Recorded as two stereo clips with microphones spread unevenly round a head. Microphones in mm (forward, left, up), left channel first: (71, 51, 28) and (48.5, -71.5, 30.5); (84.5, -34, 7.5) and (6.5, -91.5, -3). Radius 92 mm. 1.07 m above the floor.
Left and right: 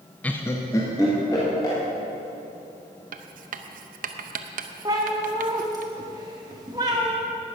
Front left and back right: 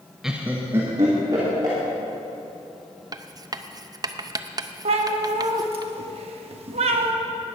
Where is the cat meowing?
170° right, 0.8 m.